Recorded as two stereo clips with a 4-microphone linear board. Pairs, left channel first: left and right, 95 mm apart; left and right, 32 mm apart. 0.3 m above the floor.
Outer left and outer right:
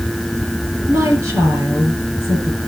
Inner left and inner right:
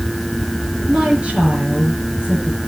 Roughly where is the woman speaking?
Right.